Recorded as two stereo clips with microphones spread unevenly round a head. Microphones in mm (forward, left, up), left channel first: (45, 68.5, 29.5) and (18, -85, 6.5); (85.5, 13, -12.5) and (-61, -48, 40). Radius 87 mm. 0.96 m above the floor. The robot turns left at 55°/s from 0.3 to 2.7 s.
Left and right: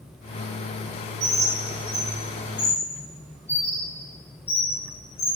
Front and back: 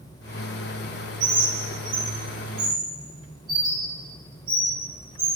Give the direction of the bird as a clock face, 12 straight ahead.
5 o'clock.